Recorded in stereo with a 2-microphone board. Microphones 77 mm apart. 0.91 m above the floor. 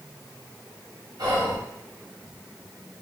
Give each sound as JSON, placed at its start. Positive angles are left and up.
{"t": 1.2, "sound": "whispering", "side_deg": -55, "distance_m": 1.1}